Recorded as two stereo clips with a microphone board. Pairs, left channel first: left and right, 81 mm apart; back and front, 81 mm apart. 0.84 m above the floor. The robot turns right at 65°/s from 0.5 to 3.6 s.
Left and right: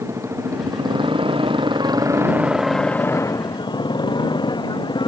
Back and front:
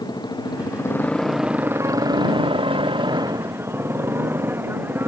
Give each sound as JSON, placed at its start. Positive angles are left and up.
{"t": 0.0, "sound": "a motorcycle", "azimuth_deg": -145}